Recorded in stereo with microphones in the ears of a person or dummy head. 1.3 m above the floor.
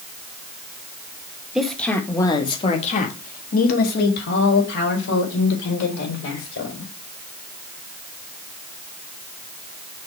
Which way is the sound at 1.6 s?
5° right (ahead or behind).